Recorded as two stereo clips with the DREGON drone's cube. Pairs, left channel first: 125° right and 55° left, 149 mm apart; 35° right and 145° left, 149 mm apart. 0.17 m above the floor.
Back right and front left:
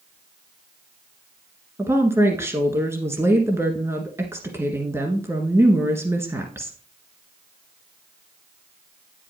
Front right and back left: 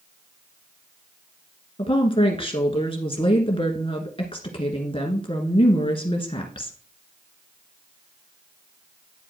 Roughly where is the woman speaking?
Ahead.